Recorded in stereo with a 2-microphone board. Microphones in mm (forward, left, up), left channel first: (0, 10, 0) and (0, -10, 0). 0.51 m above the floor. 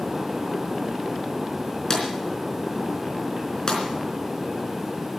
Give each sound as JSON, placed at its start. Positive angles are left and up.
{"t": 1.9, "sound": "a drawer", "side_deg": 40, "distance_m": 4.0}